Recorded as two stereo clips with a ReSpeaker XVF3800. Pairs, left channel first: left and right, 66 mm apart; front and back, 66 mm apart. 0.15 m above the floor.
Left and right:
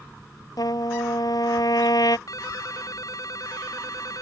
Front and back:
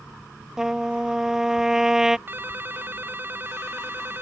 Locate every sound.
0.6 s a trumpet: 100° left
2.3 s a ringtone: 120° left